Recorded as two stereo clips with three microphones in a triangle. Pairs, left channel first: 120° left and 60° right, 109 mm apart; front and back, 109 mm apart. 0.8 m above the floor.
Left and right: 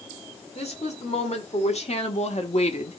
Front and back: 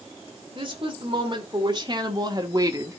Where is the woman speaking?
135° left, 2.5 m; by 3.0 s 120° left, 1.1 m.